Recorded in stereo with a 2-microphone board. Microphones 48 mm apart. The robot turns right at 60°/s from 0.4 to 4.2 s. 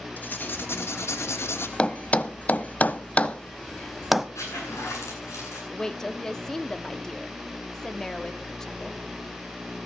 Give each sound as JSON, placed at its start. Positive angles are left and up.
{"t": 0.2, "sound": "writing", "azimuth_deg": 40, "distance_m": 2.5}
{"t": 1.8, "sound": "a thud", "side_deg": 20, "distance_m": 0.7}
{"t": 4.3, "sound": "a zipper", "side_deg": 85, "distance_m": 9.5}
{"t": 5.7, "sound": "a woman speaking", "side_deg": 15, "distance_m": 1.3}